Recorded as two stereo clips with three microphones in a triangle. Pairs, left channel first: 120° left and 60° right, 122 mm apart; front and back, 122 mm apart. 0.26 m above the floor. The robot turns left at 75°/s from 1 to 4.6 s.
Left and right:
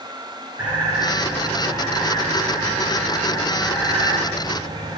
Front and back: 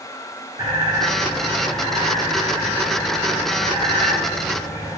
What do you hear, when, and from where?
0.6 s a bird: 130° right, 3 m; by 5.0 s 40° right, 3 m